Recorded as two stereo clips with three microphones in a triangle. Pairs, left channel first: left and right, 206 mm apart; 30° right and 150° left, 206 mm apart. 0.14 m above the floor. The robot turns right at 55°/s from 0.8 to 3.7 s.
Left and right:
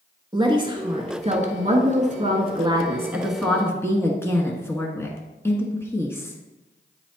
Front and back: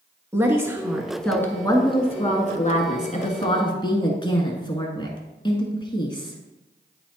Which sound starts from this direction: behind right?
A woman speaking, at 0.3 s.